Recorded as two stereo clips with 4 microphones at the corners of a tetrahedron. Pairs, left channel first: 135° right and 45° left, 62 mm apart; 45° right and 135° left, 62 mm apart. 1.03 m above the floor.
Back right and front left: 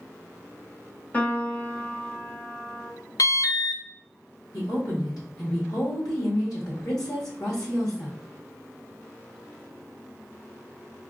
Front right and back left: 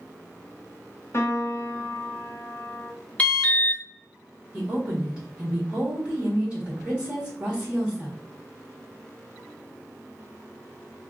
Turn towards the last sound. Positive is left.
turn(degrees=-155)